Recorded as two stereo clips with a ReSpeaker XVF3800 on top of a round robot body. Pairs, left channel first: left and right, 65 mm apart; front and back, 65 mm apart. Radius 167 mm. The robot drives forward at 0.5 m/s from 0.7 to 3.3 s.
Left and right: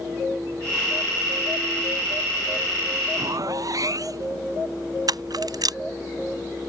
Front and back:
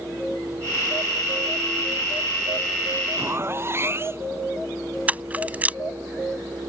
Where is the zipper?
125° right.